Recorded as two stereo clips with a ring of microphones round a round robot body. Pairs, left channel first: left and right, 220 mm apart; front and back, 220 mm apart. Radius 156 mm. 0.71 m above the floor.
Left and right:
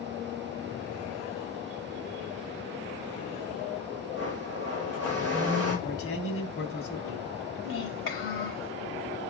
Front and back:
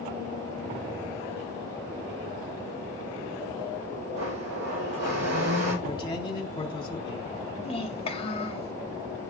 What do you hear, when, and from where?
4.1 s a blender: 160° right, 4.5 m
5.8 s a man speaking: 70° left, 3 m
7.6 s a child speaking: 65° left, 2.5 m